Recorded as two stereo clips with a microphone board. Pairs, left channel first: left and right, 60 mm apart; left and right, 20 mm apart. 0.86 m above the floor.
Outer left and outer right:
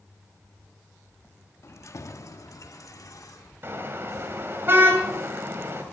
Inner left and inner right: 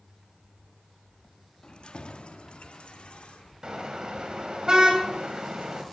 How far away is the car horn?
About 2.5 m.